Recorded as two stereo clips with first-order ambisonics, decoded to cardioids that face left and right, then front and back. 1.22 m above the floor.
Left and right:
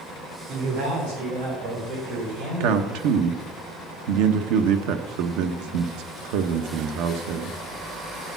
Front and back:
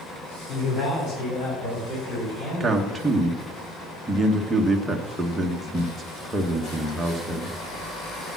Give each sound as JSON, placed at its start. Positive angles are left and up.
{"t": 0.5, "sound": "a man speaking", "azimuth_deg": -55, "distance_m": 4.0}
{"t": 2.6, "sound": "a man speaking", "azimuth_deg": -100, "distance_m": 1.2}